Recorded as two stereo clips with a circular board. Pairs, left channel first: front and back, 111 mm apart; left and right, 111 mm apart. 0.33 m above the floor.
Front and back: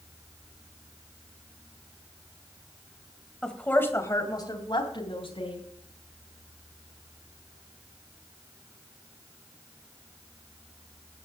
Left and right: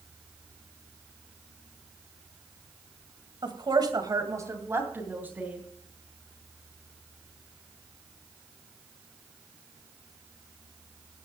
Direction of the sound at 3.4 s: 80° right.